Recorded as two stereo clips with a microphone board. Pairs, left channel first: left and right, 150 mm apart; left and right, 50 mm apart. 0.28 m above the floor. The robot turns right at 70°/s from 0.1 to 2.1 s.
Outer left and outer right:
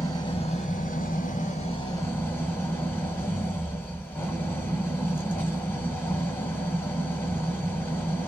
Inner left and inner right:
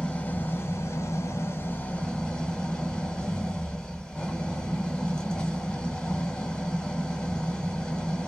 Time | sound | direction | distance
0.0 | an engine running | 25° left | 1.0 m